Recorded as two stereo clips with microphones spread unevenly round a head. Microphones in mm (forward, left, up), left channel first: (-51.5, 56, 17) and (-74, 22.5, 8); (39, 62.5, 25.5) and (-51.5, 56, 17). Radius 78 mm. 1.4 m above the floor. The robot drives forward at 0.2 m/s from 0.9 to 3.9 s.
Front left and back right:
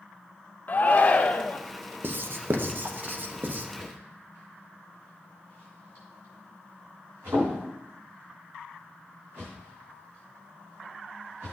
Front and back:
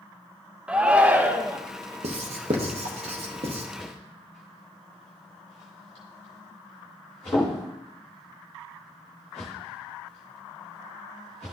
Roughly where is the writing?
Behind right.